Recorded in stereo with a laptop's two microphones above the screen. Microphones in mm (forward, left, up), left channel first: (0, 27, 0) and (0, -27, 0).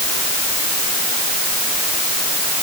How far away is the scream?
No scream in this recording.